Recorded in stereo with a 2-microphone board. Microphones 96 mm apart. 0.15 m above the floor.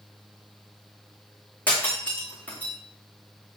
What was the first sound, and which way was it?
Breaking glass, 15° left (ahead or behind).